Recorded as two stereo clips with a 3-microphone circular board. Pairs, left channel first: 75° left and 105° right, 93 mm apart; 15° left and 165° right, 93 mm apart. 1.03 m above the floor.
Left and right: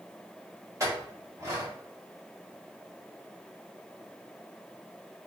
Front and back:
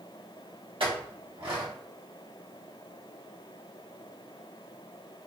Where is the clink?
160° right, 1.0 m.